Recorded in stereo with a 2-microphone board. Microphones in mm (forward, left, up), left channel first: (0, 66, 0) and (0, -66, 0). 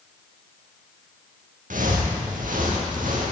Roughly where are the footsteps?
Right.